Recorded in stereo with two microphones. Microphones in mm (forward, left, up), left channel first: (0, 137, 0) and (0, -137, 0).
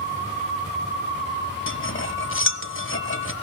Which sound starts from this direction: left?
Cutlery clinking, at 1.7 s.